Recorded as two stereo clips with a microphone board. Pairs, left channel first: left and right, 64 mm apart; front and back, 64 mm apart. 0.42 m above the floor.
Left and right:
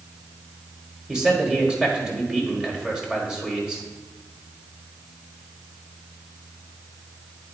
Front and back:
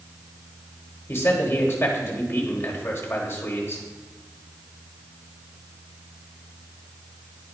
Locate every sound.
1.1 s a man speaking: 15° right, 1.5 m